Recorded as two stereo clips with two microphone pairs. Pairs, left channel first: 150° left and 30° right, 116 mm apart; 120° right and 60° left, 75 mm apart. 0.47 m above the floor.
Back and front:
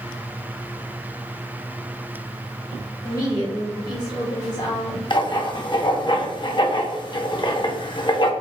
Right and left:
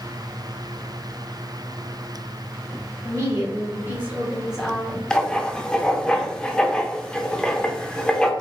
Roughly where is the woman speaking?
Left.